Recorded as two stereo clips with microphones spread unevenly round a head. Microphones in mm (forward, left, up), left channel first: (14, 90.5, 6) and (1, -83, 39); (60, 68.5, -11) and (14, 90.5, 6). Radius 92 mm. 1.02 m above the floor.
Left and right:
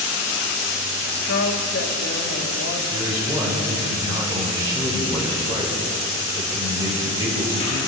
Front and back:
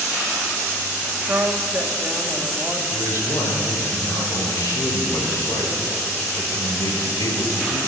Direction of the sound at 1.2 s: 105° left.